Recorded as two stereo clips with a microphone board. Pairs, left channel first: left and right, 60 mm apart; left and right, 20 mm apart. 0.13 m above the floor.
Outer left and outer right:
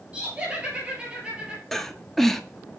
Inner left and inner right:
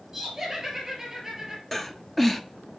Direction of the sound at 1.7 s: 5° left (ahead or behind).